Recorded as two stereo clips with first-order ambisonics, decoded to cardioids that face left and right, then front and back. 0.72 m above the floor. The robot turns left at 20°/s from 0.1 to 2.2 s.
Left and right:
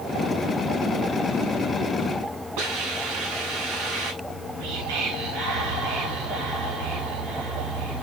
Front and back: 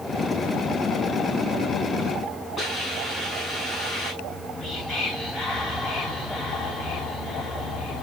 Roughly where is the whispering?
Right.